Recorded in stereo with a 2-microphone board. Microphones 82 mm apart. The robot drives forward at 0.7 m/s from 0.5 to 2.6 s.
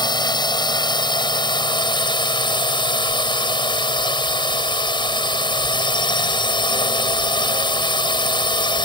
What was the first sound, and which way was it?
A drone, 65° left (ahead or behind).